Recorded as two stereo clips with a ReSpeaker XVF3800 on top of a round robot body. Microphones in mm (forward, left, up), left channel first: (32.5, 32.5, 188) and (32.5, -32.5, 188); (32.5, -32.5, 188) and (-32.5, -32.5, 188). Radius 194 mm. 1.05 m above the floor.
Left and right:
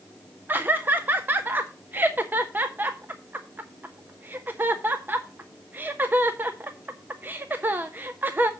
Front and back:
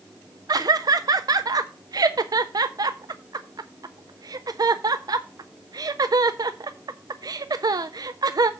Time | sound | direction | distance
0.5 | laughter | 150° right | 0.5 m